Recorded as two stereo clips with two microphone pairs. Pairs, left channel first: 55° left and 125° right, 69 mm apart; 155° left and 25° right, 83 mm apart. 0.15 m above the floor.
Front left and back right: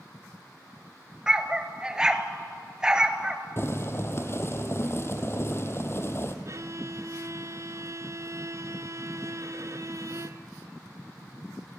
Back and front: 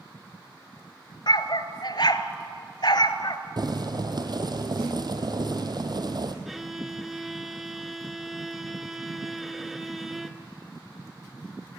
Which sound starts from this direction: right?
A violin, at 6.5 s.